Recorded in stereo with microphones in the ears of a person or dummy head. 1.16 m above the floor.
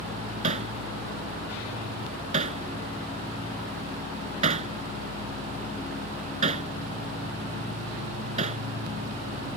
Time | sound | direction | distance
0.4 | hammering | 45° right (ahead or behind) | ?